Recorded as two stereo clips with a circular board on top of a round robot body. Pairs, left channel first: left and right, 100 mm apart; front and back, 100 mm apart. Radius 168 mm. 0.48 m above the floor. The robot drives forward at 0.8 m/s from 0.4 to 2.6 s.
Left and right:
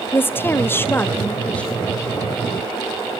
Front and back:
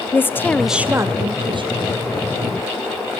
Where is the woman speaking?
45° left, 0.7 m; by 1.9 s 170° left, 1.2 m.